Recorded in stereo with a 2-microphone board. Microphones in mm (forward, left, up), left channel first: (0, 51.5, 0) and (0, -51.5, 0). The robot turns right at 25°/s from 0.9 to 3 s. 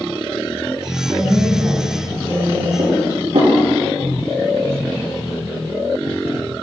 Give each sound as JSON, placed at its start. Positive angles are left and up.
{"t": 1.1, "sound": "a woman speaking", "azimuth_deg": -65, "distance_m": 3.5}
{"t": 2.8, "sound": "dishes clattering", "side_deg": -80, "distance_m": 4.5}